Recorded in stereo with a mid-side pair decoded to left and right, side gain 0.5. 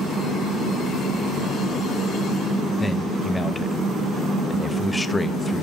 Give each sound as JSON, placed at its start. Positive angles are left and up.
{"t": 2.8, "sound": "a man speaking", "azimuth_deg": 15, "distance_m": 1.2}